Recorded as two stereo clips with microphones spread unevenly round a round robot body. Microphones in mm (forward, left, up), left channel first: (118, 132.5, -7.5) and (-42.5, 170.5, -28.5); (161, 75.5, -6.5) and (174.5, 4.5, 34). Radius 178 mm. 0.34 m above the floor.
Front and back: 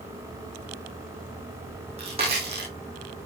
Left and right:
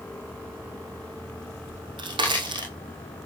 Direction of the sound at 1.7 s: 120° right.